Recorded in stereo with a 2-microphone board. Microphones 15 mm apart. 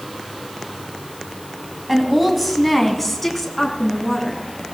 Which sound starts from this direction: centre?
A woman speaking, at 1.9 s.